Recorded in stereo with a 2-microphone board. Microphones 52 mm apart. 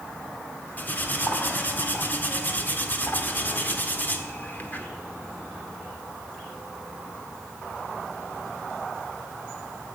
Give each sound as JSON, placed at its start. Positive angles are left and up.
{"t": 0.8, "sound": "cutlery clinking", "side_deg": 35, "distance_m": 1.7}